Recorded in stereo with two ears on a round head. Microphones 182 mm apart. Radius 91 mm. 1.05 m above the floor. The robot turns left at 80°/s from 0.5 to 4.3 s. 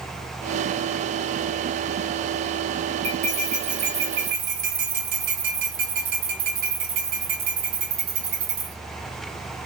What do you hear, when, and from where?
3.0 s cutlery clinking: 30° right, 1.5 m; by 8.8 s 130° right, 1.5 m